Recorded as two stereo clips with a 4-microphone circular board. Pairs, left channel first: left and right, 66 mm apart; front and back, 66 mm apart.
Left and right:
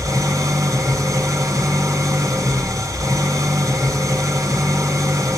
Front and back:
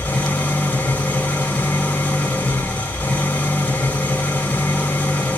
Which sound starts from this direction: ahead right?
An engine running, at 0.0 s.